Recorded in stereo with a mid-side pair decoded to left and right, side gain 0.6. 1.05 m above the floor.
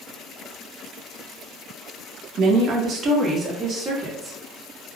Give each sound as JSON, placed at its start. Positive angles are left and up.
{"t": 2.4, "sound": "a woman speaking", "azimuth_deg": -60, "distance_m": 0.8}